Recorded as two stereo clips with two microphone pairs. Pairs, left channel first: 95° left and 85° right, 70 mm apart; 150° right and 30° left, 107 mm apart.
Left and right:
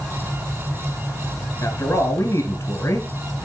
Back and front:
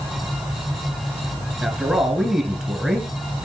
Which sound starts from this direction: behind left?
A man speaking, at 1.6 s.